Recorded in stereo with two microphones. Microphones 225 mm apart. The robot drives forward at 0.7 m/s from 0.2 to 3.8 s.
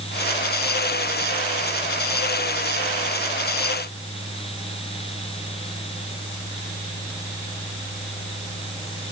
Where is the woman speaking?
No woman speaking in this recording.